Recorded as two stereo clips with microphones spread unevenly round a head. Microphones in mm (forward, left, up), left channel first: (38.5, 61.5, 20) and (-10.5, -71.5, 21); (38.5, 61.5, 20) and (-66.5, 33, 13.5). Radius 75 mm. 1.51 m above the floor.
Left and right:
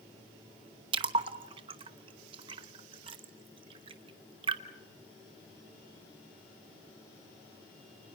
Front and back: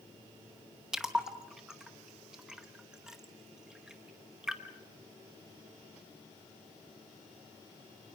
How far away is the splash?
About 0.9 m.